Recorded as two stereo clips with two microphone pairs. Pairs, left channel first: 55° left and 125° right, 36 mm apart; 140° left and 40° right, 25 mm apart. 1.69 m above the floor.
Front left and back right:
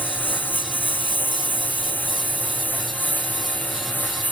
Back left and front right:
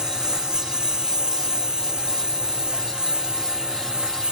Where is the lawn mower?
20° left; by 4.3 s 15° left.